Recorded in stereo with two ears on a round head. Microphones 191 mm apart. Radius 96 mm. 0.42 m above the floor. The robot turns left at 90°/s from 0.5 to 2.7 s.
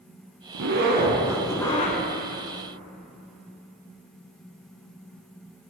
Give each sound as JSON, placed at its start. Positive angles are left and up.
{"t": 0.5, "sound": "a zipper", "azimuth_deg": -95, "distance_m": 1.0}